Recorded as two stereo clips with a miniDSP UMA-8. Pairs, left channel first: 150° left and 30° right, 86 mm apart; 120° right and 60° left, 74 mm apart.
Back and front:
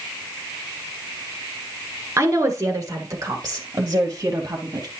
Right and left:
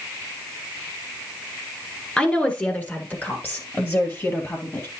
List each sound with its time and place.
2.2 s a woman speaking: 55° right, 1.5 m; by 4.9 s 70° right, 2.5 m